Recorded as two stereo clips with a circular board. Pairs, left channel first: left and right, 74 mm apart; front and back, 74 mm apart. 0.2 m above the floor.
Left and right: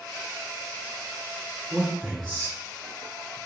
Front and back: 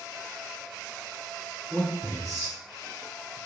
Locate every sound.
1.7 s a man speaking: 25° right, 1.8 m; by 3.4 s 80° left, 1.8 m